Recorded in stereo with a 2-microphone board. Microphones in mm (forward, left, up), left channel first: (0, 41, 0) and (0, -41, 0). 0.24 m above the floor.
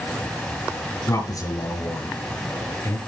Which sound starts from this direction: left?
A man speaking, at 1.1 s.